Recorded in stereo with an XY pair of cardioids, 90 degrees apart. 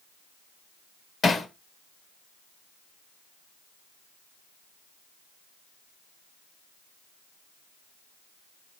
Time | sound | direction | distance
1.2 | hammering | 45° left | 1.3 m